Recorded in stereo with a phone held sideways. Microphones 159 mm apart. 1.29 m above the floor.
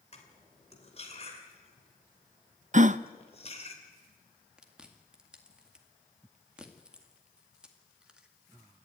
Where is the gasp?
50° right (ahead or behind), 0.5 m.